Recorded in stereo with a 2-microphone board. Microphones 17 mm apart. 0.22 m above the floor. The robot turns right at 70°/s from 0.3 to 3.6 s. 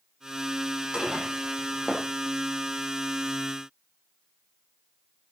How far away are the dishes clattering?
About 6.5 m.